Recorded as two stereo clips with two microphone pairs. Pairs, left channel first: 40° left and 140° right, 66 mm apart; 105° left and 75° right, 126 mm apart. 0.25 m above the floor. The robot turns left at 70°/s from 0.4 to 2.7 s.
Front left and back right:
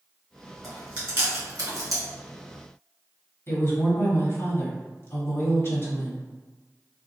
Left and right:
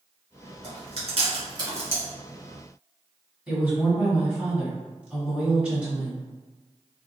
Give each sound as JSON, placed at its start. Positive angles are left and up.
{"t": 0.6, "sound": "chewing", "azimuth_deg": -55, "distance_m": 1.8}
{"t": 3.5, "sound": "a woman speaking", "azimuth_deg": 5, "distance_m": 1.7}